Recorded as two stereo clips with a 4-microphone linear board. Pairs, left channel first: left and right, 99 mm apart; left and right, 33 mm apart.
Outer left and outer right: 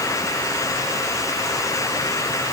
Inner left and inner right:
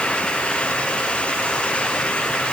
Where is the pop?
No pop in this recording.